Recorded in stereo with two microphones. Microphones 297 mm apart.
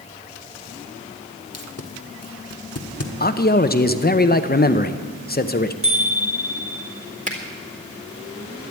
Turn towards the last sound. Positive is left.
turn(degrees=-25)  # may be behind; listen again after turning